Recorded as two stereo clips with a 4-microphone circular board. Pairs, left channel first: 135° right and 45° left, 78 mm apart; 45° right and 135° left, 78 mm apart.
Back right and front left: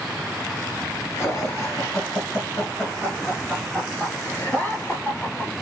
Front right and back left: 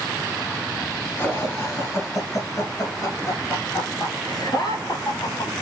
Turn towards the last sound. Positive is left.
turn(degrees=-65)